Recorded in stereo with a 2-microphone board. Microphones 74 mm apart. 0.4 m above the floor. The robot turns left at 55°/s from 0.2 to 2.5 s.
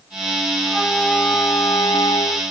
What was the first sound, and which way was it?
A flute, 170° right.